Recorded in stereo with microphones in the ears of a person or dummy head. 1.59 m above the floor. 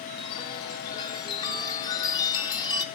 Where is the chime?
25° left (ahead or behind), 1.2 m.